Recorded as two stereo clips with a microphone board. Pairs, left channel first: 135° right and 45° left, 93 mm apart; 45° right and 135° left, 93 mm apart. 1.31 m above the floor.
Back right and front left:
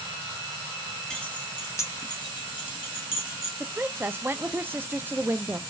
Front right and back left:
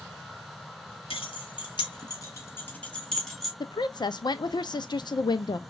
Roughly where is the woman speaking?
Ahead.